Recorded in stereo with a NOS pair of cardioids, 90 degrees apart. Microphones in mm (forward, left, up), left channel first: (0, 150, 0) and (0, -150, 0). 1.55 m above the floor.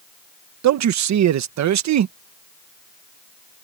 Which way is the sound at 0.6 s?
65° right.